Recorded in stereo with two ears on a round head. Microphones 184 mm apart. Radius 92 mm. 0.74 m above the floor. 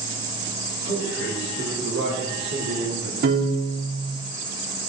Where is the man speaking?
50° right (ahead or behind), 4 m; by 3.1 s 55° right (ahead or behind), 1.9 m.